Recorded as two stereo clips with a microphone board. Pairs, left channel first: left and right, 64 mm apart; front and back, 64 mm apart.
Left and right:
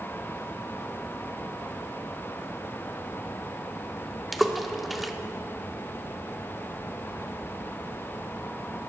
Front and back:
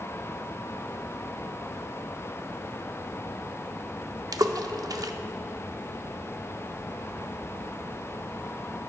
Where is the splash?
Straight behind, 0.6 m.